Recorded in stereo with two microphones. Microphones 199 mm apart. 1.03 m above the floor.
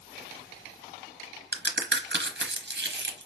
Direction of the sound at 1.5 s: 65° right (ahead or behind).